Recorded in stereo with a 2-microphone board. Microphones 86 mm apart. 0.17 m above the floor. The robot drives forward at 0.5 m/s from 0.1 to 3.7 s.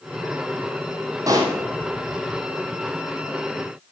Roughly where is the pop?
Right.